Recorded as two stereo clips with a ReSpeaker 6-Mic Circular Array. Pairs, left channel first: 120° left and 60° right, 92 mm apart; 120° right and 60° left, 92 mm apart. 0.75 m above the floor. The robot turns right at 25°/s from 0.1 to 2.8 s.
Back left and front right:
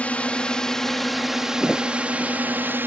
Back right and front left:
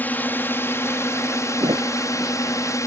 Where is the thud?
30° left; by 1.9 s 35° left.